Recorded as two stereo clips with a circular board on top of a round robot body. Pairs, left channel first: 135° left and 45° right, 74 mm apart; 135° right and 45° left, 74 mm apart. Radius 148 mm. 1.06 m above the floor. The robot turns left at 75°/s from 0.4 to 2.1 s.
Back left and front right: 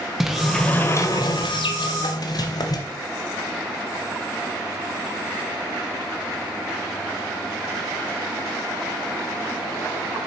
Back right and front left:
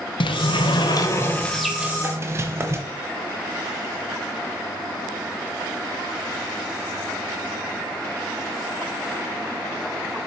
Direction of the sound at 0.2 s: 130° right.